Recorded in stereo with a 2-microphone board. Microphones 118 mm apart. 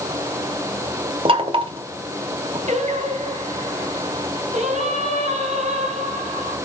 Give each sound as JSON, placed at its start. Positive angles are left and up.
{"t": 1.2, "sound": "knocking", "side_deg": -50, "distance_m": 1.6}
{"t": 2.7, "sound": "singing", "side_deg": -80, "distance_m": 3.0}